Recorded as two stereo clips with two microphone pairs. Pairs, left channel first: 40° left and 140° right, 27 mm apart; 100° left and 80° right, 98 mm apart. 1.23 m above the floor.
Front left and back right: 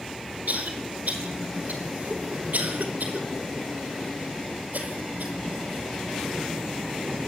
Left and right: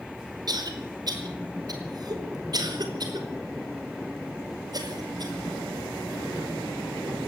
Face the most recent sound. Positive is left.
turn(degrees=-125)